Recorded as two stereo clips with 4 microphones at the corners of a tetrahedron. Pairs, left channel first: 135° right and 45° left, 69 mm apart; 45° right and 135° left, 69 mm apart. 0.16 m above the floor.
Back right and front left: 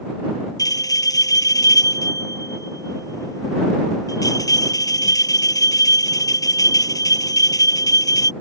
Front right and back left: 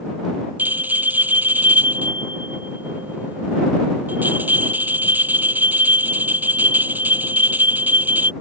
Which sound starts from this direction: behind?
A bell, at 0.6 s.